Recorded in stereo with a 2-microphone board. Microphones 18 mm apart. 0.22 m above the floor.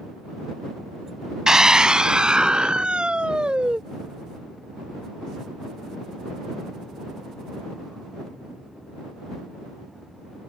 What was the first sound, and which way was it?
A scream, 35° right (ahead or behind).